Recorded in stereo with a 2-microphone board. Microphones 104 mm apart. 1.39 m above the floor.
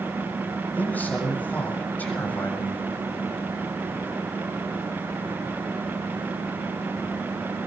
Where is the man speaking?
15° left (ahead or behind), 7 m.